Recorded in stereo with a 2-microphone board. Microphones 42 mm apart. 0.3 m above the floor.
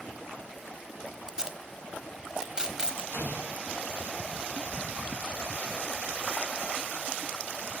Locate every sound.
1.3 s tape being pulled: 15° right (ahead or behind), 1.1 m
3.1 s an explosion: 60° left (ahead or behind), 6.5 m